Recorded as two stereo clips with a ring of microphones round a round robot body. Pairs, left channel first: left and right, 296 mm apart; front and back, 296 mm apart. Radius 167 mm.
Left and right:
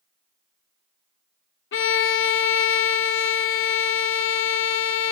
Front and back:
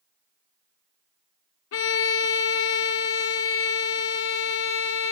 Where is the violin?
45° left, 0.6 m.